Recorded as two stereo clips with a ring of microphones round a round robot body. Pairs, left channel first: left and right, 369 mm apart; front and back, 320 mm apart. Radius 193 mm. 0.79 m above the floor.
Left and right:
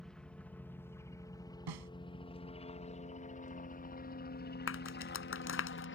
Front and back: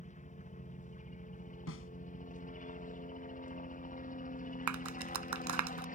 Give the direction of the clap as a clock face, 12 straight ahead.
7 o'clock.